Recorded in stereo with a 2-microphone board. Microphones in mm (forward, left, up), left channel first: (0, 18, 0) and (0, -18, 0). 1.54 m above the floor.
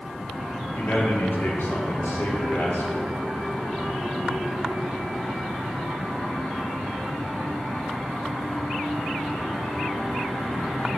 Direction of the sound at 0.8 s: 60° left (ahead or behind).